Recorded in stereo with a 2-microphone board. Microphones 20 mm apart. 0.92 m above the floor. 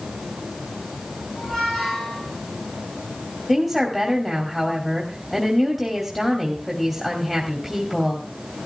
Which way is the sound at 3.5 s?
5° right (ahead or behind).